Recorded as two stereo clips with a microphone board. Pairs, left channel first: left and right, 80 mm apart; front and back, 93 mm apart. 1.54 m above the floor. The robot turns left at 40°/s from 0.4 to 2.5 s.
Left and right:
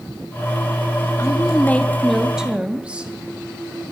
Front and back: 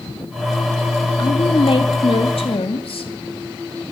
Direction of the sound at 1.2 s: 40° left.